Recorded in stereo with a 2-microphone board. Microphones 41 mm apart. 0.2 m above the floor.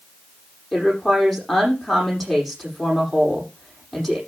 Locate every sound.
0.7 s a woman speaking: 5° left (ahead or behind), 8 m